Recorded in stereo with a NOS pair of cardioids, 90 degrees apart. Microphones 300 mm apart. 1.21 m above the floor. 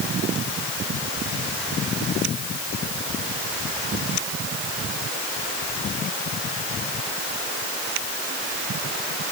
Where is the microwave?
No microwave in this recording.